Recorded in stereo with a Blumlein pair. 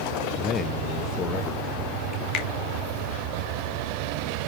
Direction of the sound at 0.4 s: 25° left.